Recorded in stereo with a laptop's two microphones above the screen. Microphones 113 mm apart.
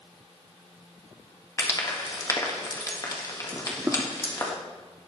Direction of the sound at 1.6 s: 30° left (ahead or behind).